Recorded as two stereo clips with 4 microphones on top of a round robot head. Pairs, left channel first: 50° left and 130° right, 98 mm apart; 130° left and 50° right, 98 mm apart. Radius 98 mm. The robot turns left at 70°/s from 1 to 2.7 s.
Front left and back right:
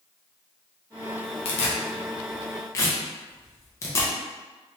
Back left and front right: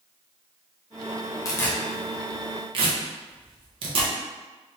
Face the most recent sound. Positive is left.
turn(degrees=-15)